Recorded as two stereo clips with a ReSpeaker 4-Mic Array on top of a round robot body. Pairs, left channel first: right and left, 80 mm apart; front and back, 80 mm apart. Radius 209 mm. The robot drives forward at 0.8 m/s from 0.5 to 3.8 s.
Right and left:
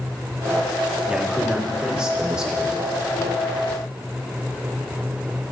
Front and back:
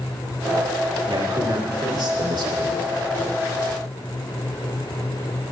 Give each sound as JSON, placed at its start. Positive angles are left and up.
{"t": 1.1, "sound": "a man speaking", "azimuth_deg": 170, "distance_m": 1.9}